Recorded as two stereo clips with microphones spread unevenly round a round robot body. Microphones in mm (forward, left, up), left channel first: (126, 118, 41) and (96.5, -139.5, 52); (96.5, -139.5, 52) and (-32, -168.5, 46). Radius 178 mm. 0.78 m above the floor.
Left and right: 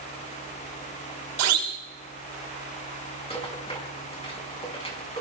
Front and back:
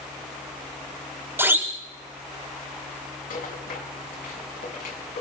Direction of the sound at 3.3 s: 15° left.